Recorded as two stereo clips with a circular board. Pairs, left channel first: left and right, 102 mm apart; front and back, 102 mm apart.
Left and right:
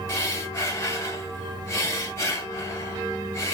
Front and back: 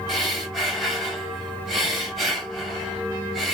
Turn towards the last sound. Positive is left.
turn(degrees=90)